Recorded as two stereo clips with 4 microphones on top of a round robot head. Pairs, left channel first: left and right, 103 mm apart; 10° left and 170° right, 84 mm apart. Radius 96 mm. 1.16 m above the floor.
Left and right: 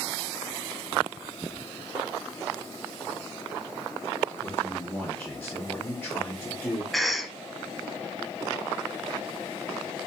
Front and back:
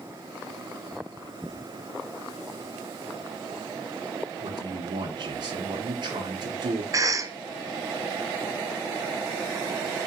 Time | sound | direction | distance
4.4 | a man speaking | 165° left | 1.2 m
6.9 | a cough | straight behind | 0.8 m